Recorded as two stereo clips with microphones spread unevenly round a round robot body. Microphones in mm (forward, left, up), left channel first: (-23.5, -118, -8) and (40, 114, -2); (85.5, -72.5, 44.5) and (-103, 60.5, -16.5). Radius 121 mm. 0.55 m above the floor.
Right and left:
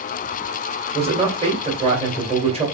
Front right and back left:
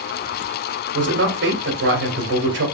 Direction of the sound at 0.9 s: 140° left.